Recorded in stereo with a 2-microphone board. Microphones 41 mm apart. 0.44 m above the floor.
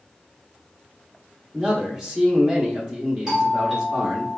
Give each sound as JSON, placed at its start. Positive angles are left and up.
{"t": 1.5, "sound": "a man speaking", "side_deg": -15, "distance_m": 0.9}
{"t": 3.3, "sound": "a doorbell", "side_deg": -15, "distance_m": 1.7}